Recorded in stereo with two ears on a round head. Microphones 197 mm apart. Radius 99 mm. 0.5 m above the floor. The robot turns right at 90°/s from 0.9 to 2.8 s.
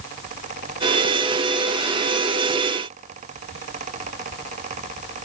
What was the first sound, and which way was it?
Only background noise.